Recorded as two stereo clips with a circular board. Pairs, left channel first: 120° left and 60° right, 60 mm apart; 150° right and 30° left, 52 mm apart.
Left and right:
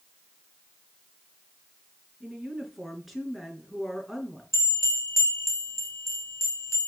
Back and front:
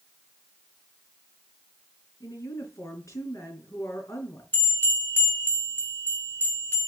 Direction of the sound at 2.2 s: 145° right.